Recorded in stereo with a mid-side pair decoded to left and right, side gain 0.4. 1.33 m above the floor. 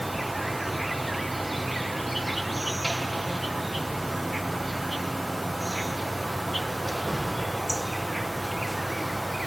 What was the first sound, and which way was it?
An insect, 10° right.